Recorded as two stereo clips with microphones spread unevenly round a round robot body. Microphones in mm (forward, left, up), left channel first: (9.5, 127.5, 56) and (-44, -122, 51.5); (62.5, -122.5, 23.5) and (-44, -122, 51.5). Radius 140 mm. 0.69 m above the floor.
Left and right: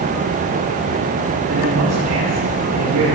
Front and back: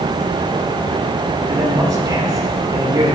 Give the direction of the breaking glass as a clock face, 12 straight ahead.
I don't hear breaking glass.